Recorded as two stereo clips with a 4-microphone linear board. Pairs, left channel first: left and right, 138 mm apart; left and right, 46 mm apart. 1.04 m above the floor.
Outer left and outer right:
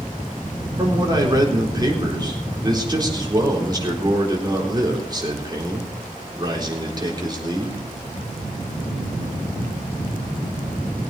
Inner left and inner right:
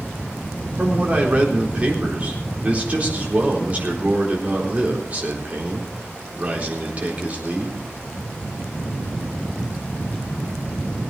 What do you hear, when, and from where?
0.8 s a man speaking: 30° right (ahead or behind), 4 m